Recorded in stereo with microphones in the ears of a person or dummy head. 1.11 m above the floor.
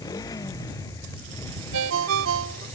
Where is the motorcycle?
20° left (ahead or behind); by 2.8 s 15° left (ahead or behind).